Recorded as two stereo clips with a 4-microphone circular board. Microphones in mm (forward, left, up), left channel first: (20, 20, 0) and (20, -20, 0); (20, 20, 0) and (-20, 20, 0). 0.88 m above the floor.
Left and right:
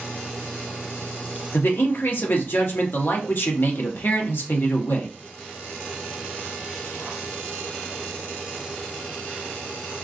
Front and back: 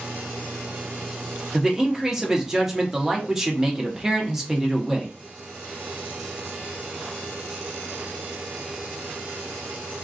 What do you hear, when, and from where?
1.5 s a man speaking: 105° left, 1.0 m